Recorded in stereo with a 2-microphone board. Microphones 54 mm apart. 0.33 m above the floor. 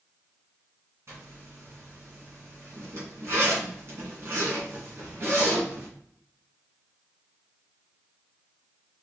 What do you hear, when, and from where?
1.1 s a zipper: 55° right (ahead or behind), 2 m